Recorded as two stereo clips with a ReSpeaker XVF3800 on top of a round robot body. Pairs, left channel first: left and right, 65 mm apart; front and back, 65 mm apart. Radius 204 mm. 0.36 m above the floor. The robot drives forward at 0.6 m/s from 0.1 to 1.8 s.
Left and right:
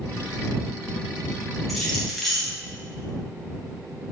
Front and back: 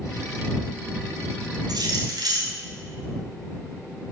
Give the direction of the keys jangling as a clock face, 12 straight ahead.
6 o'clock.